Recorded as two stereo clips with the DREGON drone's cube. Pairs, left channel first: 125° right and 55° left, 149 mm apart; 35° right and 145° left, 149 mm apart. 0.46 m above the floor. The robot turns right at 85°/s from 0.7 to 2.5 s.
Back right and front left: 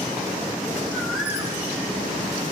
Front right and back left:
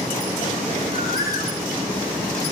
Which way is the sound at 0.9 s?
55° right.